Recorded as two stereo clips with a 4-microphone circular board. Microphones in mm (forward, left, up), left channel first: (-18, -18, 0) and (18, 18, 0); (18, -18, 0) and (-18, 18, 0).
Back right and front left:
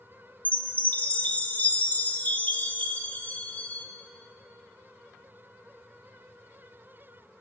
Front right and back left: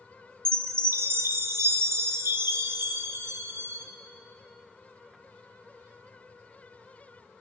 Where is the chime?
165° left, 0.7 m.